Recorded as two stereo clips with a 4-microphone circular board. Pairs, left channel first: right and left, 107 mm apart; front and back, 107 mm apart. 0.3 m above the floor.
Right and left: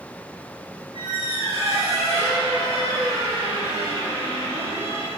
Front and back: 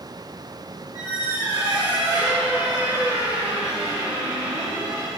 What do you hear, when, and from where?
0.9 s a squeak: 125° left, 4 m